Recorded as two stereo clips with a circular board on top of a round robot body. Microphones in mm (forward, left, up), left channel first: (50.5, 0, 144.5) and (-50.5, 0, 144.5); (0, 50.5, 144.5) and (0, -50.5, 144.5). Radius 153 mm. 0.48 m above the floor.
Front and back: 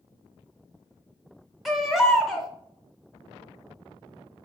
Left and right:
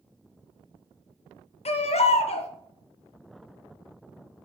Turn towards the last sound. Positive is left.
turn(degrees=90)